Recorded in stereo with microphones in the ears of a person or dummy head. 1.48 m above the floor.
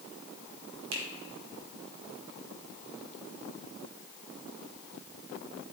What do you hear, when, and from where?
0.9 s a finger snap: 85° right, 2.5 m